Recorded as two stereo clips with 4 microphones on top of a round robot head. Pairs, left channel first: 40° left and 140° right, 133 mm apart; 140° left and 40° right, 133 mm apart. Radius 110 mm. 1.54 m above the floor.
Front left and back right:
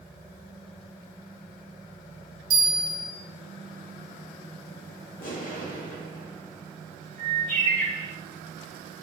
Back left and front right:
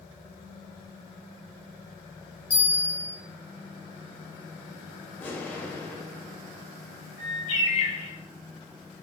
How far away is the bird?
About 1.9 m.